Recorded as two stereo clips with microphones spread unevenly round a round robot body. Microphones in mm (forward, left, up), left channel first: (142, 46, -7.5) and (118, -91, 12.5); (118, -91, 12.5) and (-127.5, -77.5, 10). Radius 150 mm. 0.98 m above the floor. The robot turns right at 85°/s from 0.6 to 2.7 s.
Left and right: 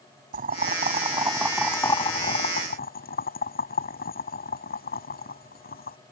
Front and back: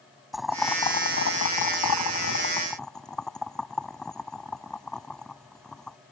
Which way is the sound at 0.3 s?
95° right.